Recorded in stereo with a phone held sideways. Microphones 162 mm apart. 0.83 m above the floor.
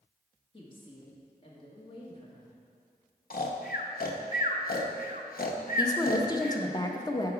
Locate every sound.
0.5 s a woman speaking: 30° left (ahead or behind), 1.5 m
3.3 s snoring: 65° left (ahead or behind), 0.6 m
5.8 s a woman speaking: 25° left (ahead or behind), 0.6 m